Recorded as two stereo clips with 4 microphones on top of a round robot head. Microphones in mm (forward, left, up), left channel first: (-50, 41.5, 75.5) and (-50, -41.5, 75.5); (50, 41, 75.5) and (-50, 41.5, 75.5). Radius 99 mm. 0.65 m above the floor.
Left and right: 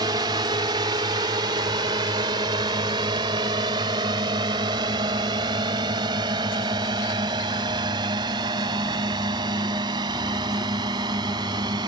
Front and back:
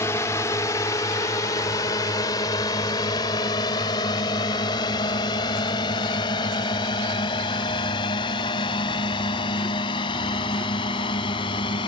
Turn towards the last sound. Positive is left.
turn(degrees=-45)